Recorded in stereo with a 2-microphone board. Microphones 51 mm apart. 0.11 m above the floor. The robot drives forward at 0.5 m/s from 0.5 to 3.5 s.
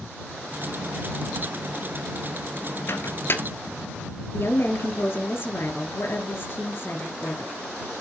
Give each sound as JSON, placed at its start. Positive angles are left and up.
{"t": 2.9, "sound": "a microwave", "side_deg": 50, "distance_m": 1.2}
{"t": 4.3, "sound": "a woman speaking", "side_deg": 45, "distance_m": 2.5}